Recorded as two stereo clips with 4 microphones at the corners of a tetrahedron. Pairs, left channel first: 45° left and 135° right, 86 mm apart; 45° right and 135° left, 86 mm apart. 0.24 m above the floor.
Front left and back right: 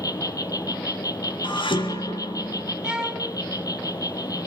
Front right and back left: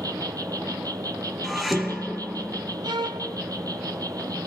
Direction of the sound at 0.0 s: 90° left.